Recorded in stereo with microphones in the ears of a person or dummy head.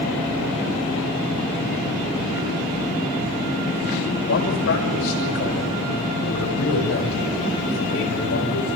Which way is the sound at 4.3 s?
75° left (ahead or behind).